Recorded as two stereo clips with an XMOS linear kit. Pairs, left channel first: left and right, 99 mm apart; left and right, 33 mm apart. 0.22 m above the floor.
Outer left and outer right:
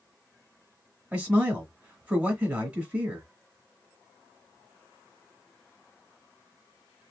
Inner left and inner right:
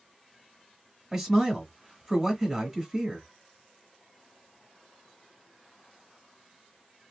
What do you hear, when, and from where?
1.1 s a man speaking: 10° right (ahead or behind), 1.3 m